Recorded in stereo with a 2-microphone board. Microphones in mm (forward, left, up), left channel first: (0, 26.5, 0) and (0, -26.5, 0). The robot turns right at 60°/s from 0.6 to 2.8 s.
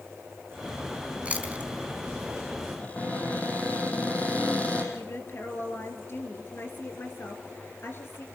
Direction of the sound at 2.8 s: 30° left (ahead or behind).